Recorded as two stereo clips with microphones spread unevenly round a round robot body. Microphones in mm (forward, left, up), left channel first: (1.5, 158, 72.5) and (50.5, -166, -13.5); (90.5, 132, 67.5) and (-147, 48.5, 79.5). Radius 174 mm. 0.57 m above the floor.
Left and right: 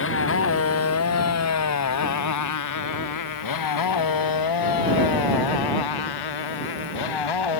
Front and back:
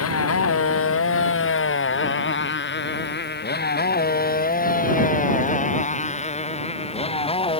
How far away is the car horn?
No car horn in this recording.